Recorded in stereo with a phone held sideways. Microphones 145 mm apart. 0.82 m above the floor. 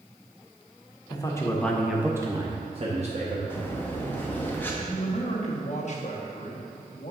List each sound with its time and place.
1.1 s a man speaking: 30° left (ahead or behind), 1.0 m; by 3.4 s 55° right (ahead or behind), 1.3 m
3.5 s breathing: 15° left (ahead or behind), 1.1 m
4.8 s a man speaking: 55° left (ahead or behind), 1.2 m